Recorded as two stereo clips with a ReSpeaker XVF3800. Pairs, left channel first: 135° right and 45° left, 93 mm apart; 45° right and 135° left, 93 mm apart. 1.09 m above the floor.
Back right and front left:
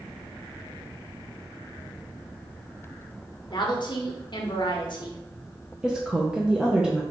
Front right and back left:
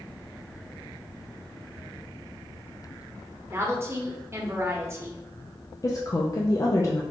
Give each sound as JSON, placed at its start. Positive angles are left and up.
{"t": 3.5, "sound": "a woman speaking", "azimuth_deg": -165, "distance_m": 0.9}
{"t": 5.8, "sound": "a woman speaking", "azimuth_deg": -30, "distance_m": 0.6}